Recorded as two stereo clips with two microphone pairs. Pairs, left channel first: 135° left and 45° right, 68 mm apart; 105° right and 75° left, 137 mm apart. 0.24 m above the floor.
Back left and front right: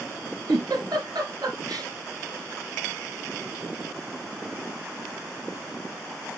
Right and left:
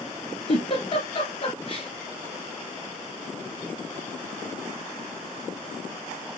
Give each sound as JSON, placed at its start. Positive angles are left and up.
{"t": 0.5, "sound": "a giggle", "azimuth_deg": -60, "distance_m": 2.5}